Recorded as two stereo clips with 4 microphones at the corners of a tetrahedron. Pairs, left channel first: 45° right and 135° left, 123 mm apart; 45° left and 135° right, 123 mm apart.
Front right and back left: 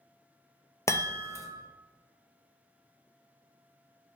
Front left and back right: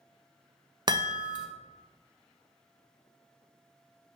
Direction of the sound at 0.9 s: 100° right.